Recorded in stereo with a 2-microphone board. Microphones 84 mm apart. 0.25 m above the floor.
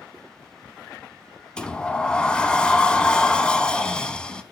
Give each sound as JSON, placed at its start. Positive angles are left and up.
{"t": 1.6, "sound": "a sliding door", "side_deg": 10, "distance_m": 0.7}